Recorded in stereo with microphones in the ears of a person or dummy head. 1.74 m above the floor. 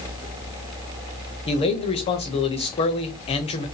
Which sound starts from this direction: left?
A man speaking, at 1.5 s.